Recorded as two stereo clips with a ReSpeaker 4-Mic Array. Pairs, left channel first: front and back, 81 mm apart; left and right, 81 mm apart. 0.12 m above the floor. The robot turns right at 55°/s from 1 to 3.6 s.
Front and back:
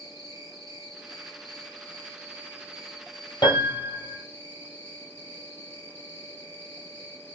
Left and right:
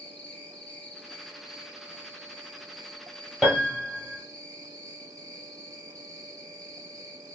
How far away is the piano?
About 1.3 m.